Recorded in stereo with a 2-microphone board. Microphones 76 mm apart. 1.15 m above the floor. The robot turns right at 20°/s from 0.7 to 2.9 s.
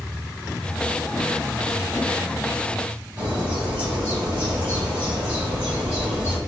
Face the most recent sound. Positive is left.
turn(degrees=-15)  # may be behind; listen again after turning